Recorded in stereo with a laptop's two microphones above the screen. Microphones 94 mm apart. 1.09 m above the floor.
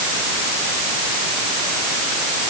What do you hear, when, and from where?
Only background noise.